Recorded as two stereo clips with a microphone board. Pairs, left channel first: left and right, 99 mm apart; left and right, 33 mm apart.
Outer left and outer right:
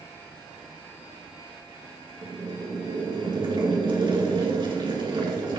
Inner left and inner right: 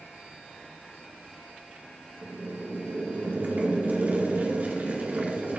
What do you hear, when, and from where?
2.2 s boiling: 55° right (ahead or behind), 2.5 m